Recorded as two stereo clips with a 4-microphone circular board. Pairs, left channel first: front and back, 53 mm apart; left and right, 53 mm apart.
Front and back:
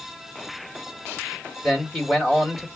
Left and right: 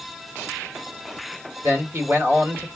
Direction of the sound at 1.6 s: 95° right.